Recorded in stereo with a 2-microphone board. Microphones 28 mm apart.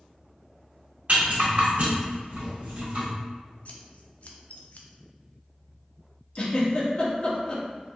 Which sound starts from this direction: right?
A rattle, at 1.1 s.